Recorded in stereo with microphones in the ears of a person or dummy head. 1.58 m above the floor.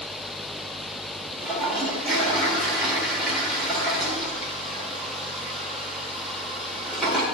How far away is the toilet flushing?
About 2 m.